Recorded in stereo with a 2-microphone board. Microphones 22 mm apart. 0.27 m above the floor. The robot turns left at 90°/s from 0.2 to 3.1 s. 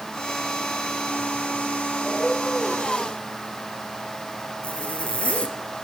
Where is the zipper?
65° left (ahead or behind), 3 m.